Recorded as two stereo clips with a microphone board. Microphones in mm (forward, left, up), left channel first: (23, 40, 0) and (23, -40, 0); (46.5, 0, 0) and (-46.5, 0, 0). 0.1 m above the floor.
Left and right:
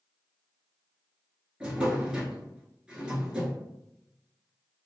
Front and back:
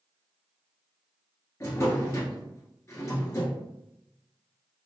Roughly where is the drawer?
Ahead.